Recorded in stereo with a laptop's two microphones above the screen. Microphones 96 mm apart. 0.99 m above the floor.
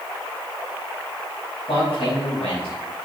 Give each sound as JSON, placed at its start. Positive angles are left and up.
{"t": 1.7, "sound": "a man speaking", "side_deg": 75, "distance_m": 5.0}